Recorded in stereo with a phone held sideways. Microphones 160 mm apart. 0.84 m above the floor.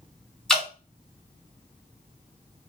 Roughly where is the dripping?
Centre.